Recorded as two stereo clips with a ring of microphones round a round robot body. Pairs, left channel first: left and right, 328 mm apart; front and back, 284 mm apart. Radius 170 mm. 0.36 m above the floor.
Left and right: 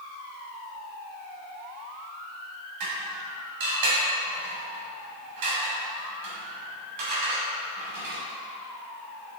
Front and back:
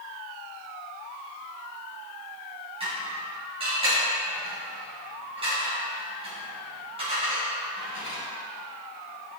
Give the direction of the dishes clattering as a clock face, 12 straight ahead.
4 o'clock.